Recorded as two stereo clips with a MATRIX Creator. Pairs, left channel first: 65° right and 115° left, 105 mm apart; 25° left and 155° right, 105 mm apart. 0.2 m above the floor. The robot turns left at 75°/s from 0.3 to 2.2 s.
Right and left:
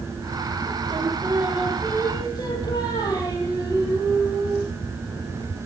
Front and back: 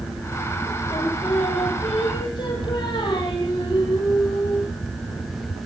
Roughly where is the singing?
Left.